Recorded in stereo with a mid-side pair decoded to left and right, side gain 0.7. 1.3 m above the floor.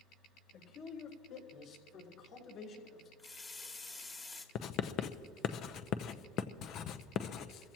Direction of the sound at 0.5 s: 65° left.